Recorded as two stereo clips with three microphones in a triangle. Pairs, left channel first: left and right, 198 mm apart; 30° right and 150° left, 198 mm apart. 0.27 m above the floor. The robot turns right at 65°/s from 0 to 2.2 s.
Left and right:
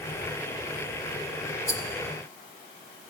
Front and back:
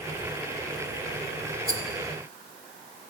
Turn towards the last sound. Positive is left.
turn(degrees=155)